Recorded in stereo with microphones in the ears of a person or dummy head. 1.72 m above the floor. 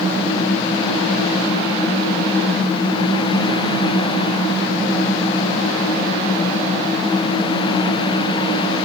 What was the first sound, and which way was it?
Only background noise.